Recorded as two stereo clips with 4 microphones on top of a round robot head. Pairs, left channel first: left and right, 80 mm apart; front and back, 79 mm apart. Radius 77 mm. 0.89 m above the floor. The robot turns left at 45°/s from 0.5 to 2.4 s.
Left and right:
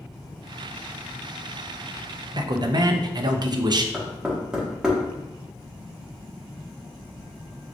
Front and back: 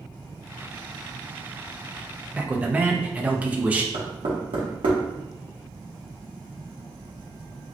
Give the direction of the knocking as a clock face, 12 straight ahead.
6 o'clock.